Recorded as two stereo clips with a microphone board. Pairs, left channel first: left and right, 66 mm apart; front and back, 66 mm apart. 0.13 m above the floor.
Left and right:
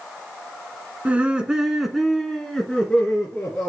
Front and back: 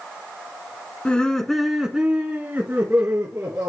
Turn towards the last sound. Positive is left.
turn(degrees=150)